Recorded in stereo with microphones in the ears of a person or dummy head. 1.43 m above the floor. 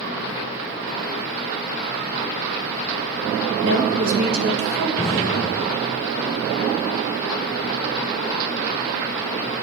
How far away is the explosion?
About 0.5 m.